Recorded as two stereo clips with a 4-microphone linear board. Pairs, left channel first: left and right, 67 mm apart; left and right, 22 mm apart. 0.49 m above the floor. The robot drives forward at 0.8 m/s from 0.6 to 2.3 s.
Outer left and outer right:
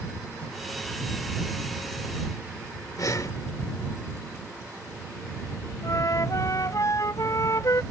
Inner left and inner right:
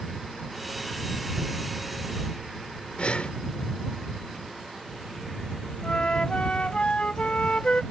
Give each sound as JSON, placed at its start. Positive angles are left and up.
{"t": 3.0, "sound": "breathing", "side_deg": 55}
{"t": 5.8, "sound": "a flute", "side_deg": 55}